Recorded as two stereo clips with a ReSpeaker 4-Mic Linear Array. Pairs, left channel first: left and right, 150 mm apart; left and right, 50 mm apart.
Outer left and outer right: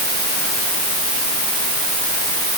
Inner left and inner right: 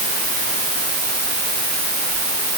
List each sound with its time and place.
Only background noise.